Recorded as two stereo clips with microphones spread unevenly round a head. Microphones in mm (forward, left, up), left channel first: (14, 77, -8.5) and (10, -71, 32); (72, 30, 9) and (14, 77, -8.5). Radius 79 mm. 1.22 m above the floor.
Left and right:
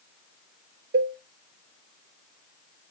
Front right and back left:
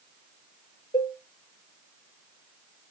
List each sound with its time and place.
0.9 s a cowbell: 75° right, 0.6 m